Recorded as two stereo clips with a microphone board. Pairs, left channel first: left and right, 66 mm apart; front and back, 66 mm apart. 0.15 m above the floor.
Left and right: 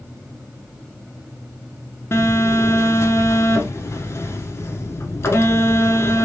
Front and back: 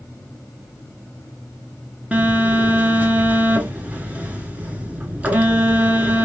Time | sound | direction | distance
2.1 | a phone buzzing | 120° left | 0.8 m